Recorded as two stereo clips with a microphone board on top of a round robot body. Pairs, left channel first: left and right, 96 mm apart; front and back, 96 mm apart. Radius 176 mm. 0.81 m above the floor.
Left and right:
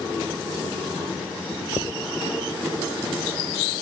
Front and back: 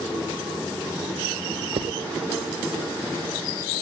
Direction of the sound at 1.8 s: 155° left.